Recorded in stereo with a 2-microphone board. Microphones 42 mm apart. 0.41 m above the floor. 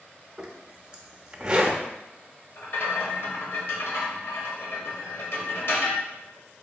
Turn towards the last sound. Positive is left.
turn(degrees=65)  # may be behind; listen again after turning